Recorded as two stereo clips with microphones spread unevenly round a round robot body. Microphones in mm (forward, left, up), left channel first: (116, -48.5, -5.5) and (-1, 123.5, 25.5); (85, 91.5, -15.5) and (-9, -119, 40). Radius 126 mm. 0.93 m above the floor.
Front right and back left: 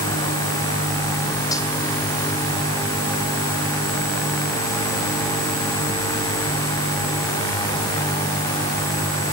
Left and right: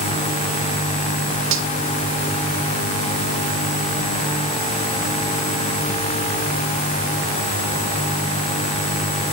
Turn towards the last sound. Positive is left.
turn(degrees=-135)